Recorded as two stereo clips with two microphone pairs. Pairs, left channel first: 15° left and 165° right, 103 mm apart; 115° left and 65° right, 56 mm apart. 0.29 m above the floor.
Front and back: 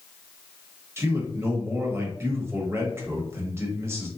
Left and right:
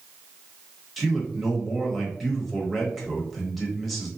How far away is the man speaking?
About 1.0 m.